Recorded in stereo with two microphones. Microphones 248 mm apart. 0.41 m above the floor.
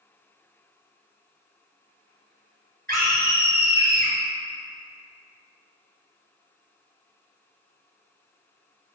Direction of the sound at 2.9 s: 45° right (ahead or behind).